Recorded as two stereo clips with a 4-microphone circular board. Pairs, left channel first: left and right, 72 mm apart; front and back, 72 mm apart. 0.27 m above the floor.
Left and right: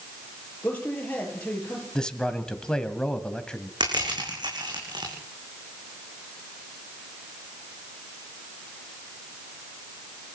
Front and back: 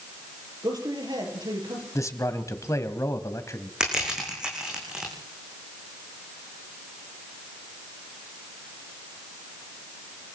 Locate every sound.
0.6 s a man speaking: 160° left, 7 m
1.9 s a man speaking: 15° left, 1.7 m
3.8 s crushing: 100° right, 7.5 m